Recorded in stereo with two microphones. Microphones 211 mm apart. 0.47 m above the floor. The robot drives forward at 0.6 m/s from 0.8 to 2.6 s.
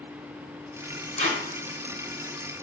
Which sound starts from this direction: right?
Tape being pulled, at 1.2 s.